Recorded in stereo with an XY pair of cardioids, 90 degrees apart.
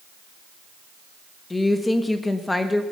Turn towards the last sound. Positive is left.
turn(degrees=15)